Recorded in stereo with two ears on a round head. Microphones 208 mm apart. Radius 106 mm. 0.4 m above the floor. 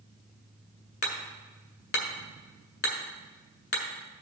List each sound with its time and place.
1.0 s hammering: 50° left (ahead or behind), 1.7 m